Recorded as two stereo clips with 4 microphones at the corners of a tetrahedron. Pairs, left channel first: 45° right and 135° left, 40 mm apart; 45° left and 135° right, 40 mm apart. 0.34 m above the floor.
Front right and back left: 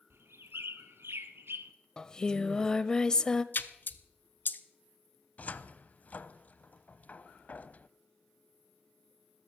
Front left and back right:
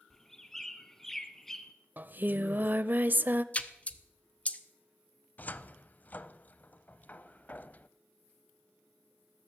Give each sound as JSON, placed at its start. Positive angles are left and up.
{"t": 0.1, "sound": "a bird", "azimuth_deg": 125, "distance_m": 1.1}
{"t": 2.0, "sound": "singing", "azimuth_deg": -110, "distance_m": 0.6}
{"t": 3.5, "sound": "a splash", "azimuth_deg": -10, "distance_m": 0.8}
{"t": 5.4, "sound": "a cupboard door", "azimuth_deg": 0, "distance_m": 0.6}